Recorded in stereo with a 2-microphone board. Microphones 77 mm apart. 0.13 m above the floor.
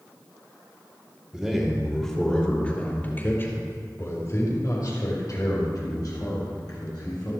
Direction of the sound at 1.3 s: 10° right (ahead or behind).